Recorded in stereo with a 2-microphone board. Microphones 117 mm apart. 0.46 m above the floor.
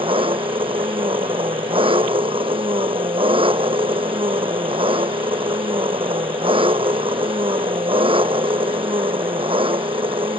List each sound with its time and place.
0.0 s an engine running: 50° right (ahead or behind)